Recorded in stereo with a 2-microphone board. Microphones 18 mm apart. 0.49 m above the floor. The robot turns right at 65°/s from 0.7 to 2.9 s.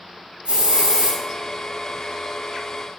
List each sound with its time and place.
0.5 s a hiss: 85° right, 3 m; by 1.2 s 55° right, 3 m